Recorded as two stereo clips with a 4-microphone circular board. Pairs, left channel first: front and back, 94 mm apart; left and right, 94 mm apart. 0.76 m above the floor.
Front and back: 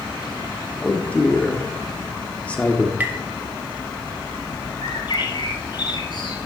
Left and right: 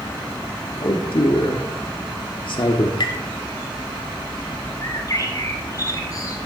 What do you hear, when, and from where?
0.8 s a man speaking: 75° left, 1.5 m
3.0 s tapping: 110° left, 2 m
4.8 s a bird: 40° left, 2.5 m